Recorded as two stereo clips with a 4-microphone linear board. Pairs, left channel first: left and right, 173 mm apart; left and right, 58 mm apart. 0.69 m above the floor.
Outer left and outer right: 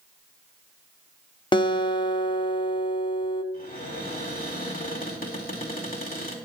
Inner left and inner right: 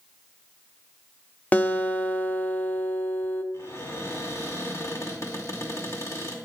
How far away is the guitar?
About 0.8 m.